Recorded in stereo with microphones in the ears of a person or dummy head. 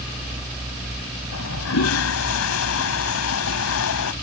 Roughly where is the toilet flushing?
Left.